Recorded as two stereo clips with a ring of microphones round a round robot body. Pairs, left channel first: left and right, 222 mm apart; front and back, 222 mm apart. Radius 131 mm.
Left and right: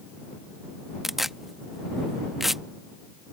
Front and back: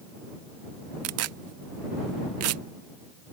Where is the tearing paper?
Straight behind.